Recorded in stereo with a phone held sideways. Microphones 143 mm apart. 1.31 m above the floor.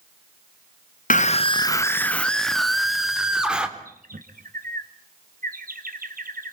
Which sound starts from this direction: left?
A scream, at 1.1 s.